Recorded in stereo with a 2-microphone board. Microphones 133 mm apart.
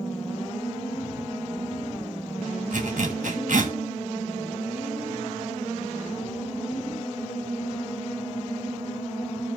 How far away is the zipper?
About 2 m.